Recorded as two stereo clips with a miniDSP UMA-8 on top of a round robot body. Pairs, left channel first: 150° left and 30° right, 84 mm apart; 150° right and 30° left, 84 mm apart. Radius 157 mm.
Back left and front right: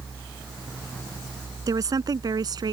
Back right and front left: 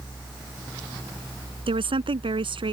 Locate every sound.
1.7 s a woman speaking: 20° left; by 2.7 s 10° left